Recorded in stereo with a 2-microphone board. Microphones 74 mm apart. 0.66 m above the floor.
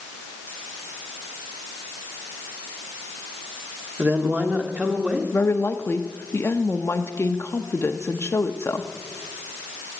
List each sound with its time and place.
4.0 s a woman speaking: 25° right (ahead or behind), 1.5 m; by 5.2 s 15° right (ahead or behind), 2.0 m
5.3 s a woman speaking: 35° left (ahead or behind), 0.7 m